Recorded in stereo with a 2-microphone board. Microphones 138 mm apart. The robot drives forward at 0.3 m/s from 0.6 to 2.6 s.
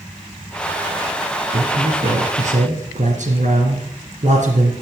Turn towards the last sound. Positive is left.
turn(degrees=-65)  # may be behind; listen again after turning